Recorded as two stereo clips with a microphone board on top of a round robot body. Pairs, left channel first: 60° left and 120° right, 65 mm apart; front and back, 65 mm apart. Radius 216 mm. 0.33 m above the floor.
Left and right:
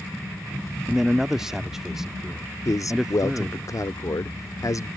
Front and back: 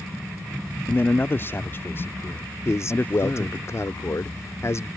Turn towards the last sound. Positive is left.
turn(degrees=40)